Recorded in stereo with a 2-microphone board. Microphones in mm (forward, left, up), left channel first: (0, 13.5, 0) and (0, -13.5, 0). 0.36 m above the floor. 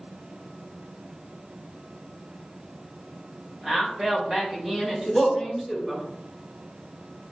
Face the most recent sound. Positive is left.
turn(degrees=-10)  # may be behind; listen again after turning